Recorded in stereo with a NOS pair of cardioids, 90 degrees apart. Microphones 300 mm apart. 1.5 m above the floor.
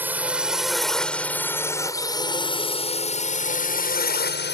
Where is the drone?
5° right; by 4.5 s 35° left.